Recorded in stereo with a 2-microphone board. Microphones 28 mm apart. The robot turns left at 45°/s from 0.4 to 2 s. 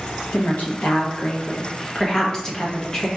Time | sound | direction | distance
0.3 | a woman speaking | 95° left | 1.1 m